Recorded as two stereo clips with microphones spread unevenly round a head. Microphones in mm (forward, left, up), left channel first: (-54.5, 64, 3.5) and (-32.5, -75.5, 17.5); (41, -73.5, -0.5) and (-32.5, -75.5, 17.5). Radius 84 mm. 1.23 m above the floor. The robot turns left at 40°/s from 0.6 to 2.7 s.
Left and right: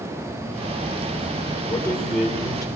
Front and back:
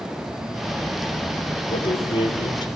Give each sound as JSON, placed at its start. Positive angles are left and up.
{"t": 1.7, "sound": "a man speaking", "azimuth_deg": 25, "distance_m": 3.5}